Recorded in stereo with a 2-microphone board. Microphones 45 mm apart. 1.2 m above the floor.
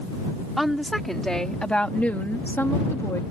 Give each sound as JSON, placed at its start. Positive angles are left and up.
{"t": 0.6, "sound": "a woman speaking", "side_deg": 0}